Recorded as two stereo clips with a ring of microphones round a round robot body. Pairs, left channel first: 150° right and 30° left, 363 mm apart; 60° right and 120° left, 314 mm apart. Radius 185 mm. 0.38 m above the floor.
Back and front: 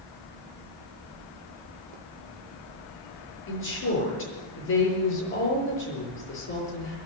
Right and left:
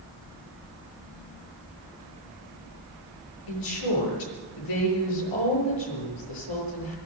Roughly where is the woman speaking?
Right.